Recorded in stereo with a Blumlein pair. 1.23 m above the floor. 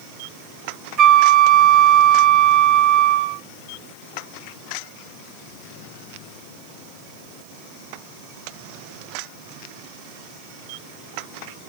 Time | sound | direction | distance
1.0 | a flute | 30° right | 0.8 m